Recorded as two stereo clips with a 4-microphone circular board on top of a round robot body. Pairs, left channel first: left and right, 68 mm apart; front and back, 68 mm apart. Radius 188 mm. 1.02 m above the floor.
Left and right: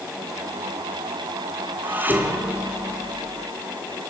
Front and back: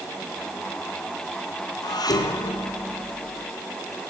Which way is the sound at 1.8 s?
25° right.